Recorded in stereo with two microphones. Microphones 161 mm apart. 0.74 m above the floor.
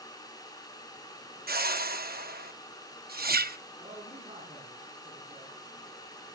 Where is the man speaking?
35° right (ahead or behind), 6.5 m.